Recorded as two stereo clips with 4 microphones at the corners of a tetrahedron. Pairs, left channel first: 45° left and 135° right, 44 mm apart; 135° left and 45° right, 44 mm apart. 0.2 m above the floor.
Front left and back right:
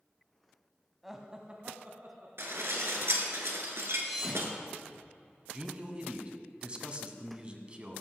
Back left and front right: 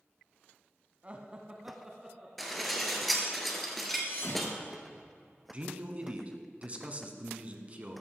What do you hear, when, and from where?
1.0 s laughter: 50° right, 1.1 m; by 2.3 s 125° right, 1.8 m
2.4 s dishes clattering: 135° right, 1.9 m
4.0 s a thud: 140° left, 4 m
5.5 s a man speaking: 85° right, 1.5 m